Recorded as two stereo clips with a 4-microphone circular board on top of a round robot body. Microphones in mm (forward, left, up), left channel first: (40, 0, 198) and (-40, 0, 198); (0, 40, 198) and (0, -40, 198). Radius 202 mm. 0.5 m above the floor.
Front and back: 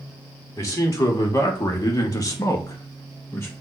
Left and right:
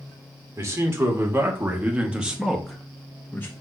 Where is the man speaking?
45° right, 2.5 m; by 3.5 s 40° left, 1.5 m.